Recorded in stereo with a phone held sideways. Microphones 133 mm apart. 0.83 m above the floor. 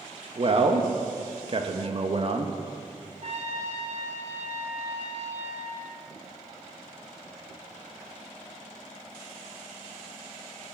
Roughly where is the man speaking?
Right.